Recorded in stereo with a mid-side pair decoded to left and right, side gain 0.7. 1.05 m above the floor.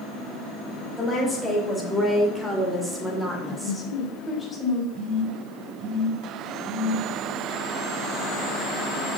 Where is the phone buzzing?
55° right, 3.5 m.